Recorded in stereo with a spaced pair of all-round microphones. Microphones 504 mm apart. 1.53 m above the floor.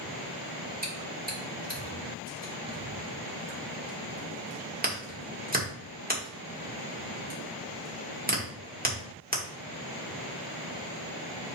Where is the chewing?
15° right (ahead or behind), 2 m.